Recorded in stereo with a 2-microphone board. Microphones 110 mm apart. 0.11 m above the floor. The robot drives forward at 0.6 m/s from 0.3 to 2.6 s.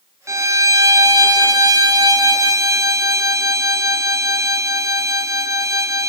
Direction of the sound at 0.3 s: 25° right (ahead or behind).